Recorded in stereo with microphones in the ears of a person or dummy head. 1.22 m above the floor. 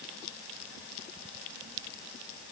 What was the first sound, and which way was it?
Only background noise.